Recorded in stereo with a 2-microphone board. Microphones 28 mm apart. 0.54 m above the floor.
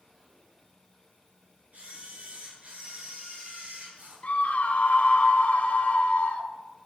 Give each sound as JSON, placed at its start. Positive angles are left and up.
{"t": 1.7, "sound": "a camera shutter", "side_deg": -60, "distance_m": 9.0}
{"t": 4.2, "sound": "a scream", "side_deg": 60, "distance_m": 2.5}